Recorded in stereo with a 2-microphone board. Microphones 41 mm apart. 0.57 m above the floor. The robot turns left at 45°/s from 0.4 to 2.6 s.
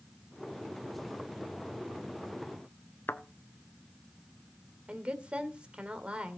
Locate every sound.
3.1 s a thud: 60° left (ahead or behind), 0.9 m
4.9 s a woman speaking: 25° right (ahead or behind), 2 m